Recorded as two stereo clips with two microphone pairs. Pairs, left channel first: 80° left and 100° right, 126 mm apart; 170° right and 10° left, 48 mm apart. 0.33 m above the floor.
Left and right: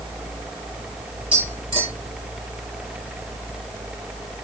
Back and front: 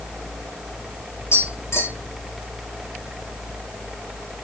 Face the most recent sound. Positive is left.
turn(degrees=-145)